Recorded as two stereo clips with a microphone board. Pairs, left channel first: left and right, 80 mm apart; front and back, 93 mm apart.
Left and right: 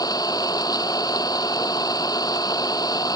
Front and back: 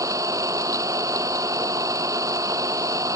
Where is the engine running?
130° left.